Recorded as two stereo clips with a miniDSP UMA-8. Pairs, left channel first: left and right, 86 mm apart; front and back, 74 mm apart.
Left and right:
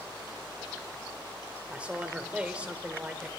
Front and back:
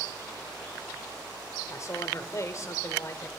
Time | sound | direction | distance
1.7 | a man speaking | 20° right | 1.8 m